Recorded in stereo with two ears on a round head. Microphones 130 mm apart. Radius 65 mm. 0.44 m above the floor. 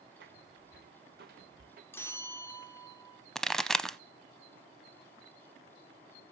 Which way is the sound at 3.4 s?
5° left (ahead or behind).